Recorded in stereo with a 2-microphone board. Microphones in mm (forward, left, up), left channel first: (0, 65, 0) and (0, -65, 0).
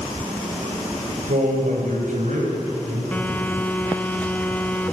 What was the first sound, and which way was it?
A man speaking, 80° right.